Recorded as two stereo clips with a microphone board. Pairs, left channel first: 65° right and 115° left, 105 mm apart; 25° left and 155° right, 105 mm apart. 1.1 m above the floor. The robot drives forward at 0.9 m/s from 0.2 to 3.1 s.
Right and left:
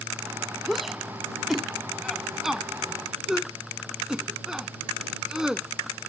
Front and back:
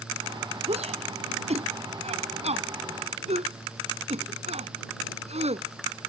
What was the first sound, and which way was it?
A shout, 160° right.